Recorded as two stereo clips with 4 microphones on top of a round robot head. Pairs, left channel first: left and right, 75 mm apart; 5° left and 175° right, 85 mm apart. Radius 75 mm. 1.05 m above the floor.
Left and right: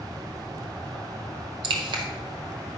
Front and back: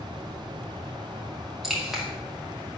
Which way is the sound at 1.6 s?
85° right.